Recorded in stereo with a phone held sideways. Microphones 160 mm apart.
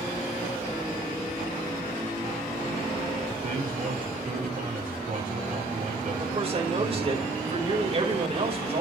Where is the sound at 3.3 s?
55° right (ahead or behind), 4.5 m.